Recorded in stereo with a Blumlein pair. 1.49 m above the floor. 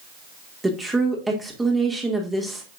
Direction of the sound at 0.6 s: 10° right.